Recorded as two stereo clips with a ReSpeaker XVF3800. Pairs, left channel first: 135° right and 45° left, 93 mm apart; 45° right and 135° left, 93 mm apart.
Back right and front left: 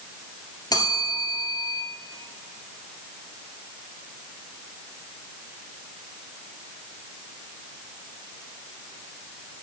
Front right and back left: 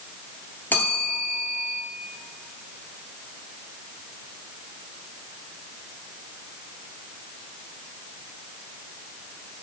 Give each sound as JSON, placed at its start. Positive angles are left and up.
{"t": 0.7, "sound": "a bell", "azimuth_deg": -110, "distance_m": 2.5}